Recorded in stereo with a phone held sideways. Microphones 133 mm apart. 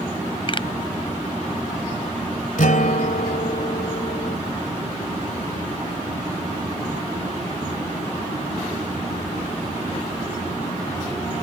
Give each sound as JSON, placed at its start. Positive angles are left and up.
{"t": 0.5, "sound": "a pop", "side_deg": 40}
{"t": 2.6, "sound": "a guitar", "side_deg": 75}